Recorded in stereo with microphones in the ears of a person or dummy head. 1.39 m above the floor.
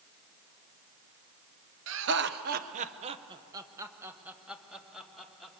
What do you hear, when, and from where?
1.9 s laughter: 70° right (ahead or behind), 1.1 m; by 5.6 s centre (ahead or behind), 2.5 m